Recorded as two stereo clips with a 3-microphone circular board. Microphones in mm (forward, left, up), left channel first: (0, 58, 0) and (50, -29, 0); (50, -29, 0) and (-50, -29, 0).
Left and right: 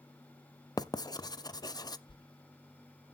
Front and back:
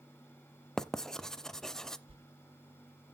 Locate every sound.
0.8 s writing: 85° left, 0.5 m
2.1 s a whoosh: 160° left, 0.8 m